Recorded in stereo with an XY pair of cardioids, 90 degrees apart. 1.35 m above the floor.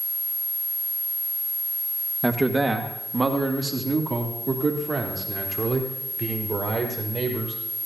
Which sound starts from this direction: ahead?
A man speaking, at 2.2 s.